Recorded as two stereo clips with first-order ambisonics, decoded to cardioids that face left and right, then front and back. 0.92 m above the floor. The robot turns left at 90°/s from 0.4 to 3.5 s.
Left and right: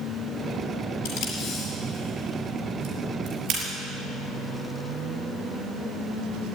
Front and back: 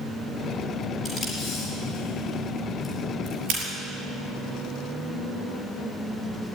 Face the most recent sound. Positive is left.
turn(degrees=-140)